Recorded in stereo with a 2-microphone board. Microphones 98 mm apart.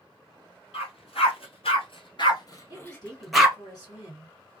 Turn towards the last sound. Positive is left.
turn(degrees=40)  # may be behind; listen again after turning